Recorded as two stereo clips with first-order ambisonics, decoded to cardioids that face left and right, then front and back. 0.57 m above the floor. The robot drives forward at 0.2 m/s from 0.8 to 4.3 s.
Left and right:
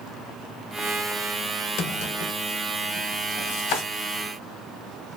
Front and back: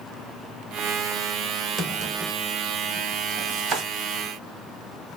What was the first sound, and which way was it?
A drawer, 120° left.